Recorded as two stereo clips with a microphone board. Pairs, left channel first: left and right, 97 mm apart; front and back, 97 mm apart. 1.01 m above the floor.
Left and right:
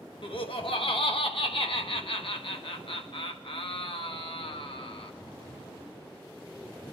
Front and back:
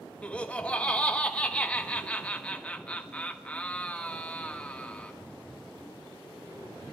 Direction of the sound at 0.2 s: 75° left.